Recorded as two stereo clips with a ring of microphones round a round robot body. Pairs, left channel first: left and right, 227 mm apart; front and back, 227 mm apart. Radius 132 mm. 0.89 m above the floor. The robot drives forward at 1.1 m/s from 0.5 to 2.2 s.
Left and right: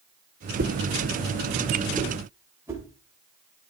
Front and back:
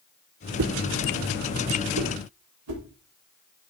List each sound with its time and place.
0.6 s a whoosh: 145° right, 0.8 m; by 3.7 s 170° right, 2.5 m